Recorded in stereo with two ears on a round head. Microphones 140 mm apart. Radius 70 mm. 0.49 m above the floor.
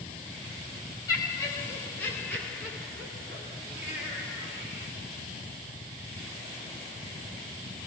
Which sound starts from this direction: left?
Laughter, at 1.1 s.